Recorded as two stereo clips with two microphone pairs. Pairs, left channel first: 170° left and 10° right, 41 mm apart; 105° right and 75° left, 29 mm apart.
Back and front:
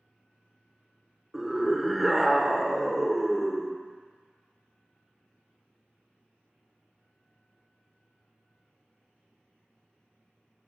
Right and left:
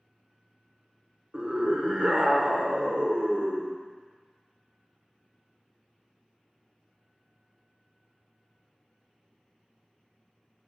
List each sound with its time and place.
1.3 s a scream: 75° left, 1.2 m